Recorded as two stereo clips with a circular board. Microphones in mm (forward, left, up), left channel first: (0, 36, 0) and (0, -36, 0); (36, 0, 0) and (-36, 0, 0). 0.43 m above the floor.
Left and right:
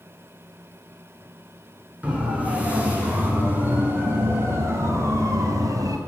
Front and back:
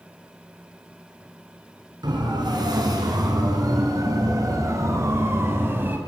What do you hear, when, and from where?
2.0 s a siren: 160° right, 7 m; by 6.0 s 115° right, 4 m